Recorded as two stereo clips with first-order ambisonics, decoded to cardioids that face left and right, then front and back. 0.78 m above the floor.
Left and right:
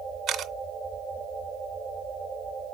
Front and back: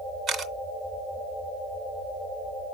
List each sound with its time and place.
0.3 s a camera shutter: 130° right, 0.6 m